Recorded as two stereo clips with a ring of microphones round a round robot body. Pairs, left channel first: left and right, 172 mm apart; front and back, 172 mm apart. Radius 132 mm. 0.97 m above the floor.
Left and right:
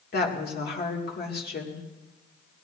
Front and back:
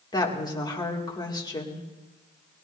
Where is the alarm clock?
I don't hear an alarm clock.